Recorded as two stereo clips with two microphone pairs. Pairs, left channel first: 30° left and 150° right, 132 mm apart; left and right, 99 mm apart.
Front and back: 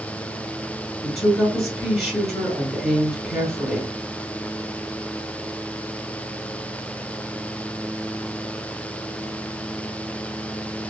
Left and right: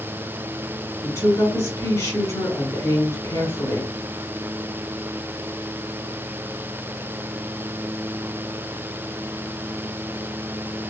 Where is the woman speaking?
105° left, 1.5 m.